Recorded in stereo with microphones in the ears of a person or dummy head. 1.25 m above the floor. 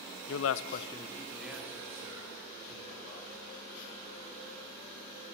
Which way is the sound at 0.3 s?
70° left (ahead or behind).